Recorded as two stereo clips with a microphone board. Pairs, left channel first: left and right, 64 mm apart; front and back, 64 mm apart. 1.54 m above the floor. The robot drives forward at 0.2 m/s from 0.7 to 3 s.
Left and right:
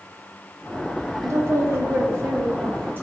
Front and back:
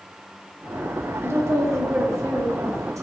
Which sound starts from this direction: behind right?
A woman speaking, at 1.2 s.